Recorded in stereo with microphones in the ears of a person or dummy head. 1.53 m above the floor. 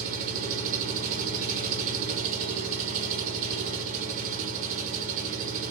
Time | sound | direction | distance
0.0 | an engine running | 50° right (ahead or behind) | 0.9 m